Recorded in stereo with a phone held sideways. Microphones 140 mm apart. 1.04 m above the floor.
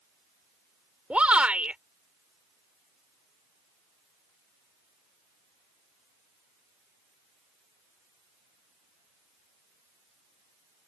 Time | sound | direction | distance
1.1 | a shout | 10° right (ahead or behind) | ?